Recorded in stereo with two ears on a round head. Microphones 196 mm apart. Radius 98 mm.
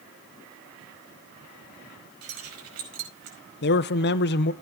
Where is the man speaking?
50° left (ahead or behind), 0.6 m.